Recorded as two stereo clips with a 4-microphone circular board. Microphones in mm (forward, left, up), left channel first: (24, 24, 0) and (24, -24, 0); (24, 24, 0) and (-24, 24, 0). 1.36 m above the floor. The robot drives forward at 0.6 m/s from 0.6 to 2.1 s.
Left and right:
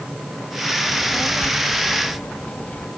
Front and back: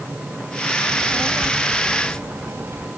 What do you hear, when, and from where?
0.9 s a child speaking: 150° left; by 2.9 s 155° left